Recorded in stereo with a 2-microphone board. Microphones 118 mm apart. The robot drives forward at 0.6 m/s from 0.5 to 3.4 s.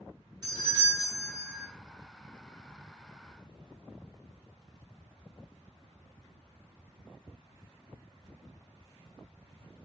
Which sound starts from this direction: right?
A doorbell, at 0.4 s.